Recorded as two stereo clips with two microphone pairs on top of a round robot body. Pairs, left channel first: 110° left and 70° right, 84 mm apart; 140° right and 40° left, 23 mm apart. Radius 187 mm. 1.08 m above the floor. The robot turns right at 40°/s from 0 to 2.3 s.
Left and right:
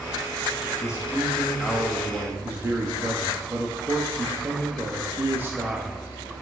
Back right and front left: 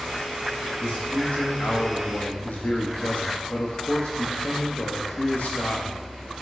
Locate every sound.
0.8 s a man speaking: 165° left, 1.7 m; by 6.0 s 135° right, 1.7 m